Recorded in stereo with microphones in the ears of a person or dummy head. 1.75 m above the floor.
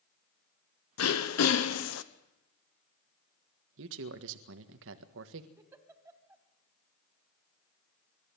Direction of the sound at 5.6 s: 15° right (ahead or behind).